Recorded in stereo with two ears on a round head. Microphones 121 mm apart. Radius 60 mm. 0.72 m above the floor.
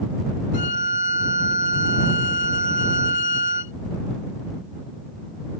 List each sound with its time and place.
0.5 s a violin: 60° left (ahead or behind)